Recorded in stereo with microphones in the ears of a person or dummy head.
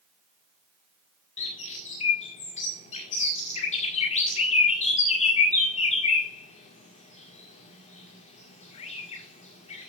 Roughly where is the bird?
Left.